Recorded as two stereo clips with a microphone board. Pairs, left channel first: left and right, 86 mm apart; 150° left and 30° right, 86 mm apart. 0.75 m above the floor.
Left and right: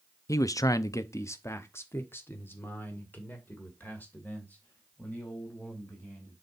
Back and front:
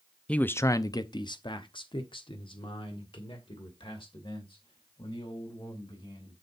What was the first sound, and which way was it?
A man speaking, 80° left.